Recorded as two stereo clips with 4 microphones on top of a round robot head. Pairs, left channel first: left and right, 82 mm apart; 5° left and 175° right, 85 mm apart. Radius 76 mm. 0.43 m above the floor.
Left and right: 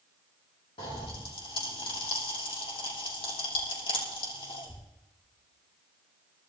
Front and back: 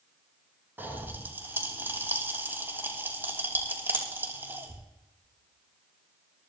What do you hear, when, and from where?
0.8 s a pop: 115° left, 6 m